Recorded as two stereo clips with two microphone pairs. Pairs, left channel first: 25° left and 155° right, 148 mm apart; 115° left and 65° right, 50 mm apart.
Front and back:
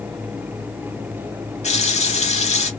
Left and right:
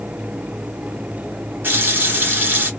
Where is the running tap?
20° right, 1.6 m.